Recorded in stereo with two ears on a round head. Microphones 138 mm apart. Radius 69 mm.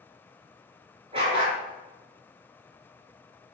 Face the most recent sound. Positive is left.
turn(degrees=-35)  # may be behind; listen again after turning